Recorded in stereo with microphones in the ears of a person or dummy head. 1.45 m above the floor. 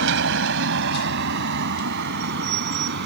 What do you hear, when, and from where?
0.0 s a vehicle: 70° right (ahead or behind); by 3.1 s 60° right (ahead or behind)